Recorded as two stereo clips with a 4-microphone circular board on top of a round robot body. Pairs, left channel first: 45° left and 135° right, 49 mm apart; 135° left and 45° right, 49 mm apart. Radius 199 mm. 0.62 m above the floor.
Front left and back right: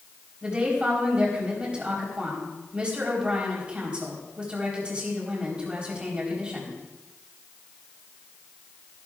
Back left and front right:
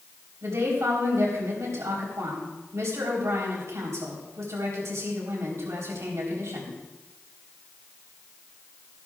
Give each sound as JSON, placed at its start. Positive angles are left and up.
{"t": 0.4, "sound": "a woman speaking", "azimuth_deg": -65, "distance_m": 4.0}